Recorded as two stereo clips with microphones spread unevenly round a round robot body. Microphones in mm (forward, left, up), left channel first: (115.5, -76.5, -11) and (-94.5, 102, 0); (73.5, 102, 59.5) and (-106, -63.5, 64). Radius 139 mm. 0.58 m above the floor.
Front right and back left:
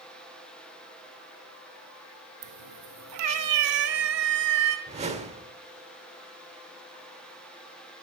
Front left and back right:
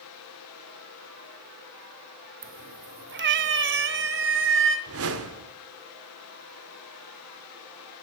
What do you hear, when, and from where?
2.4 s a cat meowing: 165° left, 0.8 m; by 4.8 s 175° right, 2.5 m
4.9 s a whoosh: 150° right, 1.8 m